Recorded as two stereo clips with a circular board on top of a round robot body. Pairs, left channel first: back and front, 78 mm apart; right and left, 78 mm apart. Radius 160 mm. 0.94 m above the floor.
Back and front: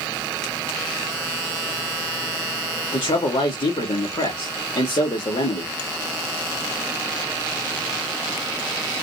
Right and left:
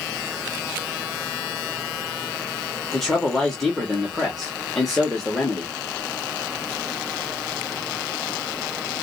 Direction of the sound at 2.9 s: 175° right.